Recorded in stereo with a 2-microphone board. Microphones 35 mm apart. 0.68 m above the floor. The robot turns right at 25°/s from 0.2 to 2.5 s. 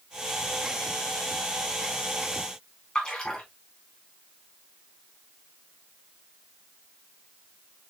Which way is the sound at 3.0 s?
20° left (ahead or behind).